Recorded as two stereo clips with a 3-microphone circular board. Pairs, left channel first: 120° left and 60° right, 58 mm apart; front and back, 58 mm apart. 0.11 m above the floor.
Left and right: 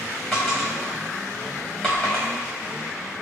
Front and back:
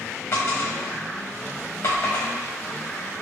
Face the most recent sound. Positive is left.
turn(degrees=35)